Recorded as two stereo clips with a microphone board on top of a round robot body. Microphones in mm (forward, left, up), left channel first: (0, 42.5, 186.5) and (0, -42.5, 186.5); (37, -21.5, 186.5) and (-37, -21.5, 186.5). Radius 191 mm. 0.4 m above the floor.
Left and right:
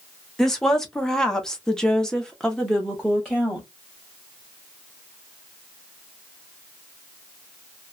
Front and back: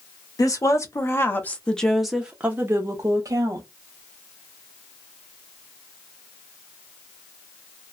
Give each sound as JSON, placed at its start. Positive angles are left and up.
{"t": 0.4, "sound": "a woman speaking", "azimuth_deg": 5, "distance_m": 1.3}